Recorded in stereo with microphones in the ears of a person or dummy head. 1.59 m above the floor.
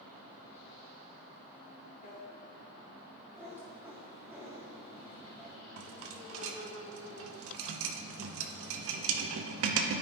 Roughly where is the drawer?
Left.